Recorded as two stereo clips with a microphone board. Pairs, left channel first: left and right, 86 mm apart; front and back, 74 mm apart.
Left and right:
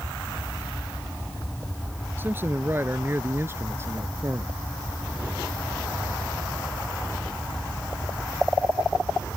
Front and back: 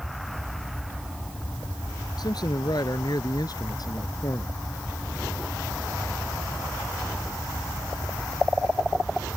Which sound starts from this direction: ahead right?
A man speaking, at 2.2 s.